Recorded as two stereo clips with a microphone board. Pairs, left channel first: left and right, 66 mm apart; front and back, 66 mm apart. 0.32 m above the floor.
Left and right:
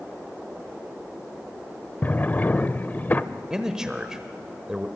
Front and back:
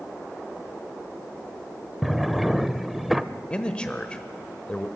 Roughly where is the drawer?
Left.